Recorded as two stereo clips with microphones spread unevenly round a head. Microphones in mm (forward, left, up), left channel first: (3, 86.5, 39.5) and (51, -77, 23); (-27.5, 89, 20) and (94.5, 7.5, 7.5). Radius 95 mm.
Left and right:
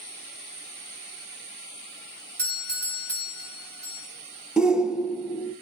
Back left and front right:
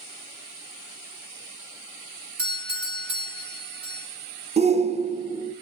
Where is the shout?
10° left, 1.2 m.